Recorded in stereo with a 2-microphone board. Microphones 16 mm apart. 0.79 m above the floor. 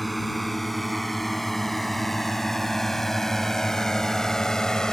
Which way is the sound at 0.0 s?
Centre (ahead or behind).